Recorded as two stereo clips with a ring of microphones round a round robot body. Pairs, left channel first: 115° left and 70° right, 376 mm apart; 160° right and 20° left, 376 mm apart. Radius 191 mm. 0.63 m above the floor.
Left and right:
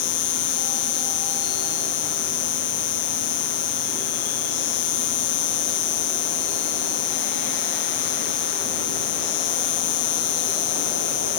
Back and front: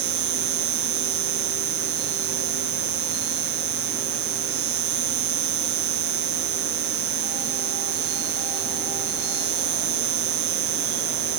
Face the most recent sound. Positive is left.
turn(degrees=70)